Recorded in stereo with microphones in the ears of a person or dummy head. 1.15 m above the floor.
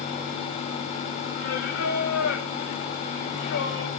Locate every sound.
1.4 s singing: 75° left (ahead or behind), 1.9 m